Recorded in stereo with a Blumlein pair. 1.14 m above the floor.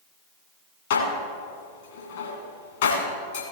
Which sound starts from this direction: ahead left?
Dishes clattering, at 0.9 s.